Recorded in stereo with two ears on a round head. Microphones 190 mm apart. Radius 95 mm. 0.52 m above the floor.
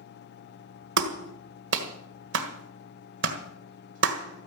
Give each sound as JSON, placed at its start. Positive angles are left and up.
{"t": 1.0, "sound": "a clap", "side_deg": -60, "distance_m": 1.7}